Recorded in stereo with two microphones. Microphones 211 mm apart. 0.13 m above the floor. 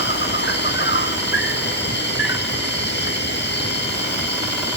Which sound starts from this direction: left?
An insect, at 0.0 s.